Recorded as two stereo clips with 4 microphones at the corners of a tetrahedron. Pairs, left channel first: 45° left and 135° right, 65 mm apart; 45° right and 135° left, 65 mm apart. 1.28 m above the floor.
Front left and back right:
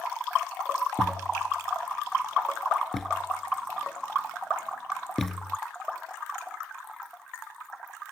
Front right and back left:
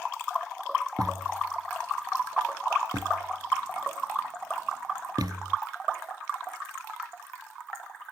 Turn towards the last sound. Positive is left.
turn(degrees=135)